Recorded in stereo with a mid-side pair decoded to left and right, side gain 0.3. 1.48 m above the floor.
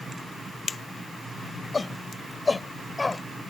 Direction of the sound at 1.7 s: 45° left.